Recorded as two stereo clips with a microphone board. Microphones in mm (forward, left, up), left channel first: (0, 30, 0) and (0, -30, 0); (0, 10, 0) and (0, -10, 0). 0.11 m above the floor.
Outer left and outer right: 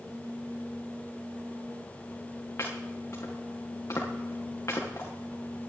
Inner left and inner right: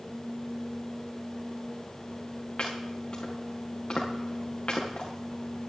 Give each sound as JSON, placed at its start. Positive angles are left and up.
{"t": 2.6, "sound": "chopping", "side_deg": 45, "distance_m": 6.0}